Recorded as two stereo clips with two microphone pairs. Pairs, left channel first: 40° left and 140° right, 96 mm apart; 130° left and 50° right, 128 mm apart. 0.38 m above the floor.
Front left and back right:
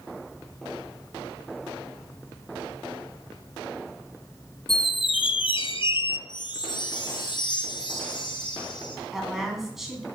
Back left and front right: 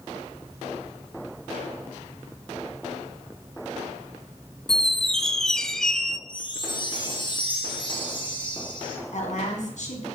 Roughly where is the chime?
Left.